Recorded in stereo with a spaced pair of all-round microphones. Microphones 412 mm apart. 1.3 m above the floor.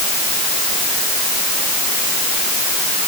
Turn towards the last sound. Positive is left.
No sound to turn to.